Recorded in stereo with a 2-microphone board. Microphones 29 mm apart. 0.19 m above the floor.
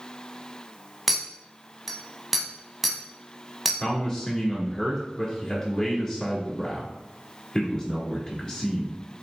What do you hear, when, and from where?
1.1 s a clink: 5° right (ahead or behind), 0.6 m
3.8 s a man speaking: 15° left (ahead or behind), 1.4 m